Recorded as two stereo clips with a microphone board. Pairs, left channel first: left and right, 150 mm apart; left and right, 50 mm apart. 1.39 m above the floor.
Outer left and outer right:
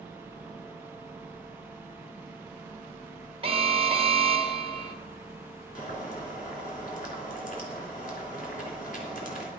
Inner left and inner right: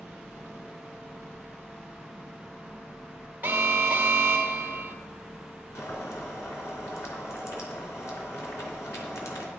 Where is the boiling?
60° left (ahead or behind), 3 m.